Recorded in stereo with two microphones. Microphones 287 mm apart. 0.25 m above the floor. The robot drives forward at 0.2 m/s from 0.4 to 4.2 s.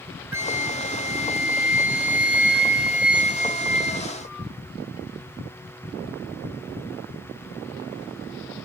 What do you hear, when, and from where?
0.3 s a flute: 10° right (ahead or behind), 0.6 m; by 4.5 s 5° right (ahead or behind), 1.4 m